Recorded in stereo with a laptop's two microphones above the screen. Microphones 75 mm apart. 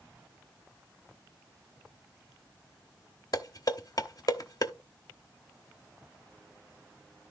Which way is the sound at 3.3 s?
55° left (ahead or behind).